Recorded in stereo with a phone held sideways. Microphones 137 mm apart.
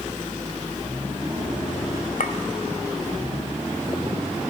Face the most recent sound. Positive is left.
turn(degrees=75)  # may be behind; listen again after turning